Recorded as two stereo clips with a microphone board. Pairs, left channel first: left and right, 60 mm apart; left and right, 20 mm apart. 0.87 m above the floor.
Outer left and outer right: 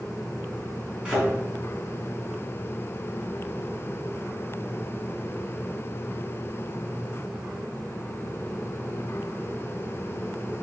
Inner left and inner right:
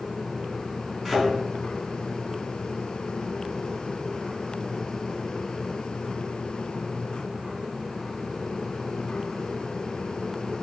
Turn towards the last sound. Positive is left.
turn(degrees=-15)  # may be behind; listen again after turning